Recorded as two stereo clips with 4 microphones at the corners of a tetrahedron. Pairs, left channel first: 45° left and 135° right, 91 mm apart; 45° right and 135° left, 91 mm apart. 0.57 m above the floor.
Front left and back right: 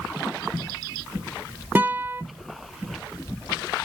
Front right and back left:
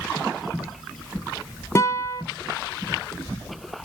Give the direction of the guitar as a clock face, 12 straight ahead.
3 o'clock.